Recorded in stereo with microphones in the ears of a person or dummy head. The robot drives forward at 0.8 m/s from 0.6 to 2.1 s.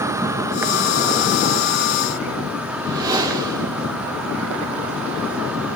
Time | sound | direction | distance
0.0 | an insect | 10° right (ahead or behind) | 1.0 m
2.7 | a whoosh | 20° right (ahead or behind) | 2 m